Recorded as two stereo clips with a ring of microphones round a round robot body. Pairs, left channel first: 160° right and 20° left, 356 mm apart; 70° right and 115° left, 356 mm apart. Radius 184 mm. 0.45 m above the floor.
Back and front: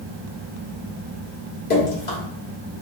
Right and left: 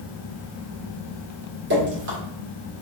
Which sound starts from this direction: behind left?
Dripping, at 1.7 s.